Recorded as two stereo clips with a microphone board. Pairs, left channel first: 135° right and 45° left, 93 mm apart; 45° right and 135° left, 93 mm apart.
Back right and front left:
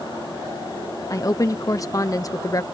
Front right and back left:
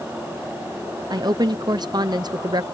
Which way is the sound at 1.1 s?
175° left.